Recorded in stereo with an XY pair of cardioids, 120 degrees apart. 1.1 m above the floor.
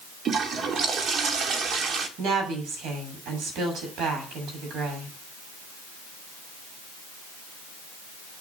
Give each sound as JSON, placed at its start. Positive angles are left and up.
{"t": 0.2, "sound": "a toilet flushing", "azimuth_deg": -45, "distance_m": 2.0}
{"t": 2.2, "sound": "a woman speaking", "azimuth_deg": -65, "distance_m": 7.0}